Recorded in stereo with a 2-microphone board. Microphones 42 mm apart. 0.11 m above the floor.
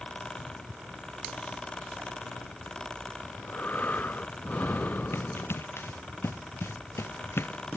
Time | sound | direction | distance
3.2 | breathing | 45° left (ahead or behind) | ?
5.1 | running footsteps | 70° left (ahead or behind) | ?